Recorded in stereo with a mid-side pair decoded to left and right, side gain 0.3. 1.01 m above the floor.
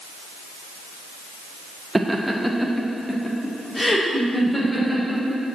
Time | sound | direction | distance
1.9 | laughter | 20° right | 0.7 m